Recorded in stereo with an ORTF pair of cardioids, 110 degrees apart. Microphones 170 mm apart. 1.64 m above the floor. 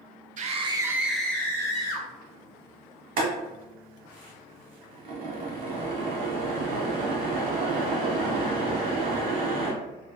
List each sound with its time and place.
0.4 s a scream: 50° right, 0.6 m; by 2.1 s 25° left, 1.3 m
3.2 s boiling: 65° right, 1.2 m